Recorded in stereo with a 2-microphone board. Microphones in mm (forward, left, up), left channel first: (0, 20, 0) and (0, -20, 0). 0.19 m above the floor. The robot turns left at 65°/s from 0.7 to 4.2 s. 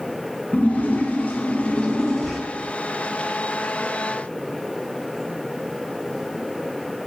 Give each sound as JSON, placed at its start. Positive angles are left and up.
{"t": 0.5, "sound": "a splash", "azimuth_deg": 110, "distance_m": 1.3}